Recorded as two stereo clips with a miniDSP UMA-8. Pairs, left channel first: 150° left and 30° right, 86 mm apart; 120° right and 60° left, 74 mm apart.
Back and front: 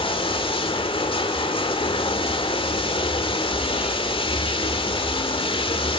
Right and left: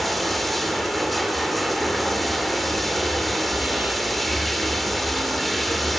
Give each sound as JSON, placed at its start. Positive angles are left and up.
{"t": 0.0, "sound": "running water", "azimuth_deg": 150, "distance_m": 1.5}